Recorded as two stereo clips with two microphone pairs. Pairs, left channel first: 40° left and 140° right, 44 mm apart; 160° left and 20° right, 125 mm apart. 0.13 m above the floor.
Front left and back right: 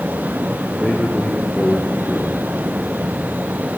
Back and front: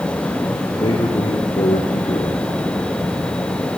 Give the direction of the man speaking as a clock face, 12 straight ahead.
8 o'clock.